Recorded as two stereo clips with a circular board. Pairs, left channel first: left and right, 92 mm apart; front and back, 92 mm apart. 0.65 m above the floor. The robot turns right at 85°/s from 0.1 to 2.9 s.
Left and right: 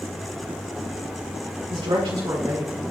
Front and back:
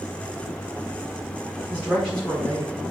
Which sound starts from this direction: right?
A man speaking, at 1.7 s.